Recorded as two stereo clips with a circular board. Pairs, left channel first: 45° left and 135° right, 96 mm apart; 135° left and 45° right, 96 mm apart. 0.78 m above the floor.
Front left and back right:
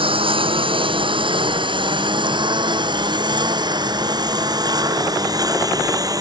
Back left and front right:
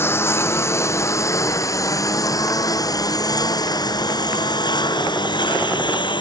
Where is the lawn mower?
160° right; by 6.2 s 175° left.